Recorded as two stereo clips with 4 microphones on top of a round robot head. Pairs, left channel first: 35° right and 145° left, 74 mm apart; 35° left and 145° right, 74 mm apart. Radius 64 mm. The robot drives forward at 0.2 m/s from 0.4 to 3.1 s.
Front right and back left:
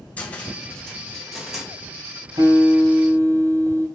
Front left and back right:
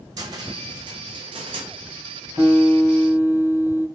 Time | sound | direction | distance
0.2 | a cupboard door | 110° right | 0.7 m
2.4 | a guitar | 150° left | 4 m